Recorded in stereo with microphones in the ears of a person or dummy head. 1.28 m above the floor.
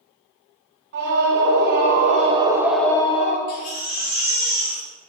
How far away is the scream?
About 1.8 m.